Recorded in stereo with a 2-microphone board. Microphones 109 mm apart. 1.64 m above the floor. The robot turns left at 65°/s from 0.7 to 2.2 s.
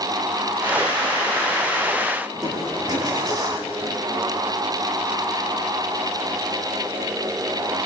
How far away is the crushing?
About 7.5 m.